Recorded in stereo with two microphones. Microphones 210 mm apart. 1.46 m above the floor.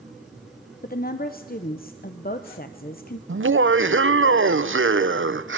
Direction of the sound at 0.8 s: 50° left (ahead or behind).